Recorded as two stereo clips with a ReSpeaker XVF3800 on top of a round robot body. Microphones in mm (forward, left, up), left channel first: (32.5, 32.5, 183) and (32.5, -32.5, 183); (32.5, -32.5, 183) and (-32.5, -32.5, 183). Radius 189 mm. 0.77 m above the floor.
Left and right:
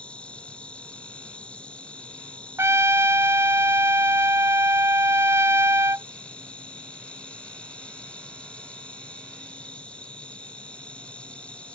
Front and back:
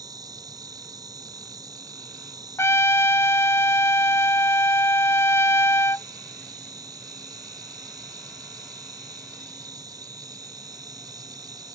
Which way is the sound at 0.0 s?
165° left.